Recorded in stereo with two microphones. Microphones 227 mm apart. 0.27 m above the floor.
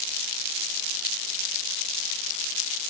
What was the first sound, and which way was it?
Only background noise.